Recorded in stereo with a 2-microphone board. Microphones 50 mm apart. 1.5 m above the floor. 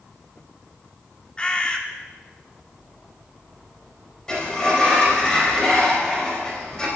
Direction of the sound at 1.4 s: 20° left (ahead or behind).